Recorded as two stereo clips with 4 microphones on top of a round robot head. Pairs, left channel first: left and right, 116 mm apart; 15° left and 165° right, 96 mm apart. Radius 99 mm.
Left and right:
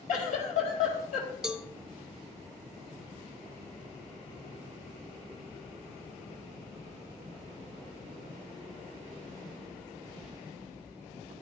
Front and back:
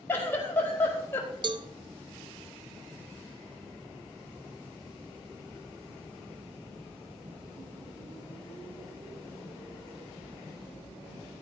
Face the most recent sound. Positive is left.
turn(degrees=-170)